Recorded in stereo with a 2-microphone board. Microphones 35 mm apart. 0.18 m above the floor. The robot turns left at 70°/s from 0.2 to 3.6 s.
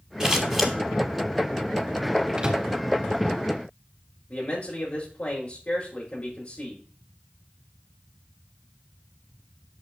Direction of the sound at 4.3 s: 40° left (ahead or behind).